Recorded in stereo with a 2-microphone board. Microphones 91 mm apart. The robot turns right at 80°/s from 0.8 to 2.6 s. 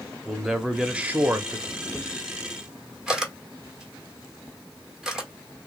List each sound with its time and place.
0.2 s a man speaking: 165° right, 0.7 m; by 1.6 s 105° right, 0.7 m
1.7 s a camera shutter: 45° left (ahead or behind), 1.1 m; by 5.6 s 5° right (ahead or behind), 1.1 m